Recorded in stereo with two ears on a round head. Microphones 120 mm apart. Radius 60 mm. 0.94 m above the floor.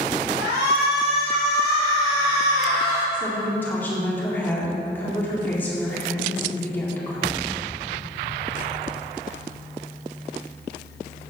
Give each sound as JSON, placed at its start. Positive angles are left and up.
{"t": 0.4, "sound": "a shout", "side_deg": -45, "distance_m": 3.0}
{"t": 3.1, "sound": "a woman speaking", "side_deg": 15, "distance_m": 1.9}